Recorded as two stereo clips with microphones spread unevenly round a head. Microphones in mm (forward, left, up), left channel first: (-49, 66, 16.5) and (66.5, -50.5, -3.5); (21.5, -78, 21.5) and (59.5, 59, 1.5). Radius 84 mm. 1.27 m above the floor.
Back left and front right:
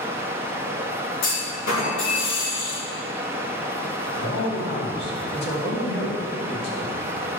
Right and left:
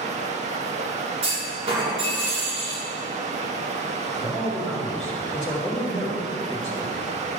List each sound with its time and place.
0.0 s running water: 35° left, 1.0 m
1.2 s a clunk: 130° left, 3.5 m
4.2 s a man speaking: 165° left, 2.5 m